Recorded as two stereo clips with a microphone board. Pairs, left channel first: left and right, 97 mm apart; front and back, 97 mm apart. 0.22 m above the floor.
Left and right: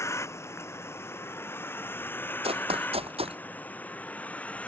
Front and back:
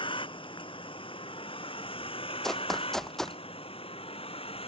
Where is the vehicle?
30° left; by 4.7 s 15° left.